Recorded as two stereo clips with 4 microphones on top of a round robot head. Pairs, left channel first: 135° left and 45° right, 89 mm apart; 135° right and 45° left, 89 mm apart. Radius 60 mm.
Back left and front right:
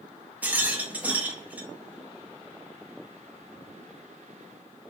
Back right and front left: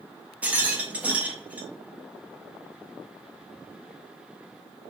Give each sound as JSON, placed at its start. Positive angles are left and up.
{"t": 0.4, "sound": "a rattle", "azimuth_deg": 0, "distance_m": 1.1}